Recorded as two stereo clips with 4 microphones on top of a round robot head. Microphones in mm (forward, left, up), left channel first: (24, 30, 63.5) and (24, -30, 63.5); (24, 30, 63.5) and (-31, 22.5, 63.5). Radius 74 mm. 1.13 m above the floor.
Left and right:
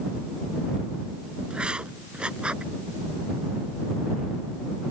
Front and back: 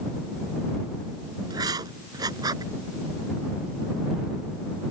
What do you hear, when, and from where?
1.5 s writing: 170° right